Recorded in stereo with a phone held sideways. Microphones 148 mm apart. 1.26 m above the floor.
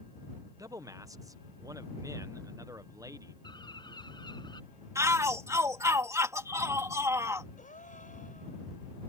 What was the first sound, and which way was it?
A man speaking, 20° right (ahead or behind).